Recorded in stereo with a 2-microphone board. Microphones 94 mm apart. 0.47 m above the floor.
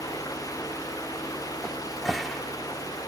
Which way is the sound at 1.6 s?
Centre (ahead or behind).